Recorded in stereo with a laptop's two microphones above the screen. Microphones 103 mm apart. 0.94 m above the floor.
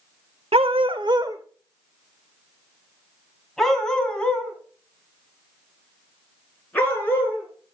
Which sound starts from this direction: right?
A dog barking, at 0.5 s.